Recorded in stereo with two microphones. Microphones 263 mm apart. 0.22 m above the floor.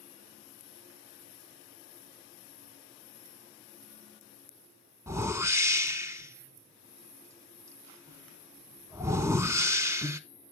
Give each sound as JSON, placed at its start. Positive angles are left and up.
{"t": 5.1, "sound": "a whoosh", "side_deg": -10, "distance_m": 0.5}